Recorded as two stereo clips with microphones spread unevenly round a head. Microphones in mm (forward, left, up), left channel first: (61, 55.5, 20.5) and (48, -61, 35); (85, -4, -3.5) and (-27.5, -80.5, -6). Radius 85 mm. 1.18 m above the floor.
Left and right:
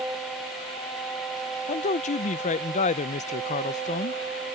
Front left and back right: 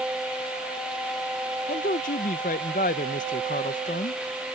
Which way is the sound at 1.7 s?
80° left.